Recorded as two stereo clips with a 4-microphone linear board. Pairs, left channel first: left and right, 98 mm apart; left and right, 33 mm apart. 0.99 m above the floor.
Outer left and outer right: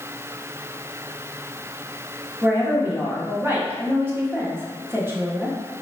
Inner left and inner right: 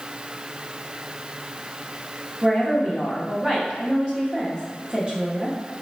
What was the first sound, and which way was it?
A woman speaking, 20° right (ahead or behind).